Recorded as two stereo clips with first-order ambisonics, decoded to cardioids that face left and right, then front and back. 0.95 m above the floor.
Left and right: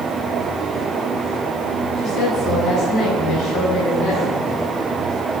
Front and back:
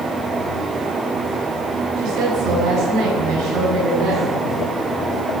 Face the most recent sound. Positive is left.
turn(degrees=160)